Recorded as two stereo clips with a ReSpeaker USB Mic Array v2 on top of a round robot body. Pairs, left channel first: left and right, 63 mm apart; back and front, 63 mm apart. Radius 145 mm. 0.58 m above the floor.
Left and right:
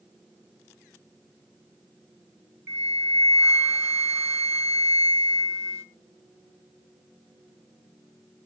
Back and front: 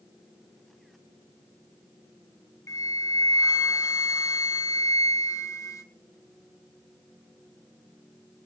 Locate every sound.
2.7 s a flute: 140° right, 1.3 m